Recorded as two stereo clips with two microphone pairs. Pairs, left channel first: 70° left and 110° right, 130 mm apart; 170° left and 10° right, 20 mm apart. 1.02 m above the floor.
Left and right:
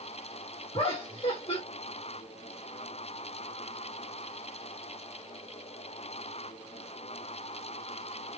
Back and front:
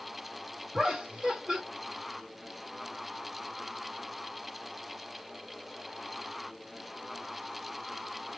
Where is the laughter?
30° left, 1.3 m.